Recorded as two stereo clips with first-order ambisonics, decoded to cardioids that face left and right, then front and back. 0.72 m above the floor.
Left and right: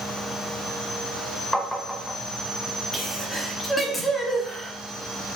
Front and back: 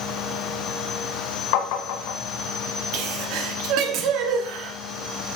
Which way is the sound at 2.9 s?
170° left.